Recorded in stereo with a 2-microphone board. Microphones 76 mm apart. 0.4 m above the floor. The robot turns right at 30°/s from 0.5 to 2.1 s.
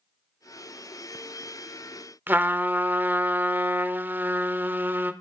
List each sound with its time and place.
2.3 s a trumpet: 25° right (ahead or behind), 0.6 m